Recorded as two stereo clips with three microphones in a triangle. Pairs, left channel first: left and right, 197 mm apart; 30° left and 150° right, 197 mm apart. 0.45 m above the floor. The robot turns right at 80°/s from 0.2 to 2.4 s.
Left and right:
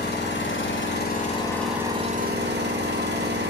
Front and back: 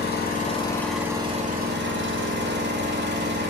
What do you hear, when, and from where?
0.0 s an engine running: 60° left, 0.8 m; by 3.5 s 125° right, 0.8 m